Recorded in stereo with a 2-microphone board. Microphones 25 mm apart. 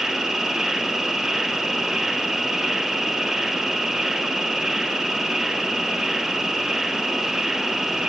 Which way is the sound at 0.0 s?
20° right (ahead or behind).